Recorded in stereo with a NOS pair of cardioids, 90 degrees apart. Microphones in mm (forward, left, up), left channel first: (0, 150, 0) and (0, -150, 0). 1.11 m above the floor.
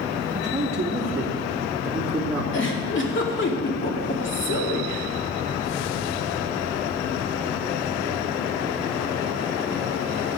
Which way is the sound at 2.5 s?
40° left.